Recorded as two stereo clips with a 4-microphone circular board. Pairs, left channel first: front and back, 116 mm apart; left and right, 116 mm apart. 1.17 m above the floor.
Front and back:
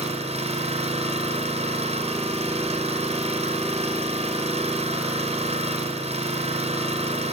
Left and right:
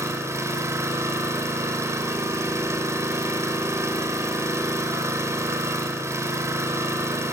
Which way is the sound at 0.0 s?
155° right.